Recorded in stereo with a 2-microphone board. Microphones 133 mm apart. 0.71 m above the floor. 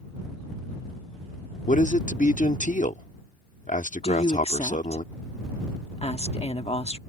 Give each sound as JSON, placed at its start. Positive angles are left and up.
{"t": 1.7, "sound": "a man speaking", "side_deg": 65}
{"t": 4.0, "sound": "a woman speaking", "side_deg": 50}